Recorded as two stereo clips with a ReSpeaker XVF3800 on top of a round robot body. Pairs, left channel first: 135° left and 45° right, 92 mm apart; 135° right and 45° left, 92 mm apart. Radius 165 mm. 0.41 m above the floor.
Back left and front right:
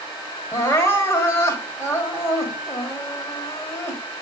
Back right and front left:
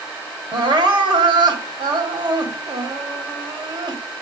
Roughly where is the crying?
Left.